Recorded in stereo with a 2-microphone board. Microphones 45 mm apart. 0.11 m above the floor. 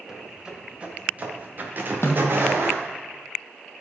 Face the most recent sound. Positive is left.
turn(degrees=65)  # may be behind; listen again after turning